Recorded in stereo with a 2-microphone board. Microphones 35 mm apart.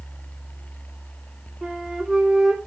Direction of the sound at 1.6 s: 15° right (ahead or behind).